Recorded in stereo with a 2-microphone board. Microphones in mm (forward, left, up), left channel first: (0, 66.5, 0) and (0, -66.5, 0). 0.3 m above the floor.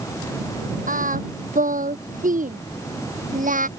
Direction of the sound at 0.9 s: 85° right.